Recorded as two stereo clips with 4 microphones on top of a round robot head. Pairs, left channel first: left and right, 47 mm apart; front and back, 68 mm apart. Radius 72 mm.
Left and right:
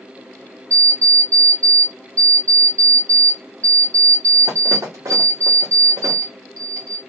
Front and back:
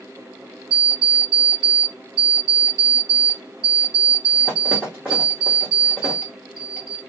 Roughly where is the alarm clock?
Right.